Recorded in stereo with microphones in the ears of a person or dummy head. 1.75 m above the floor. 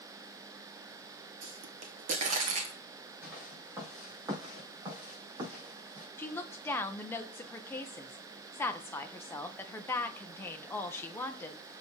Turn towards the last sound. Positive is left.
turn(degrees=10)  # may be behind; listen again after turning